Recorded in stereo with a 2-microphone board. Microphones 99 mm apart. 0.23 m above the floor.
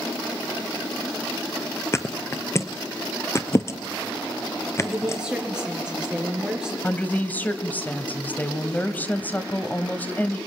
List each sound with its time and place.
1.9 s a thud: 30° left (ahead or behind), 1.0 m
4.8 s a woman speaking: 10° right (ahead or behind), 4.5 m
6.8 s a woman speaking: 20° left (ahead or behind), 1.2 m